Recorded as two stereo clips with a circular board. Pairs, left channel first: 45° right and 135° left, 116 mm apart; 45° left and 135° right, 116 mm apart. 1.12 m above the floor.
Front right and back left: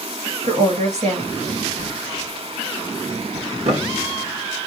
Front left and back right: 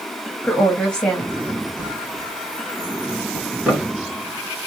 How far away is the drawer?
About 2 m.